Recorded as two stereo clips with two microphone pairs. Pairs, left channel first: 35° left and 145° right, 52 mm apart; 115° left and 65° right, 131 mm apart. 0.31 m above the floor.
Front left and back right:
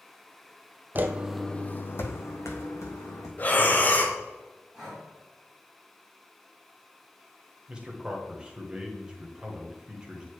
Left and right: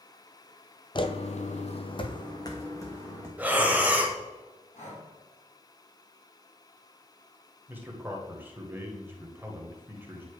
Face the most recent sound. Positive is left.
turn(degrees=-110)